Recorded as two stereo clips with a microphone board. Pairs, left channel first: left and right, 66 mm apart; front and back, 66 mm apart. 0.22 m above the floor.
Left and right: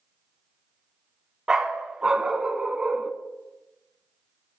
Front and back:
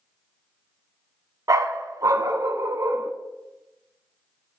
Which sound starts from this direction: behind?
A dog barking, at 1.5 s.